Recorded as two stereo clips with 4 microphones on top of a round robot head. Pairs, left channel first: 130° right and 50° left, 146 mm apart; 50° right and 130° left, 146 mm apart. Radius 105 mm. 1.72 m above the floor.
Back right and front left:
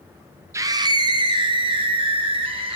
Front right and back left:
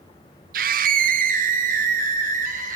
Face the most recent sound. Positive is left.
turn(degrees=100)